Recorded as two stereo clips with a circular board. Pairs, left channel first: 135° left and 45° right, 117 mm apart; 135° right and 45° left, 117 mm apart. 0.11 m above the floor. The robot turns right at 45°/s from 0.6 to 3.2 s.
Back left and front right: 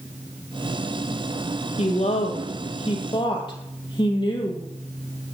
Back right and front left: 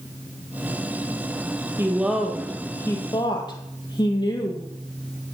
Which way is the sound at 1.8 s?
115° left.